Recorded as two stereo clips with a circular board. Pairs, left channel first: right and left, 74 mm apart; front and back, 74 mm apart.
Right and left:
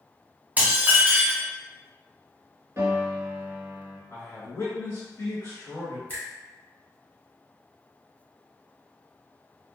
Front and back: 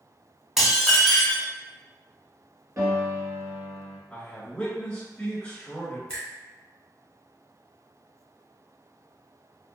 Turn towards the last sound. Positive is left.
turn(degrees=-60)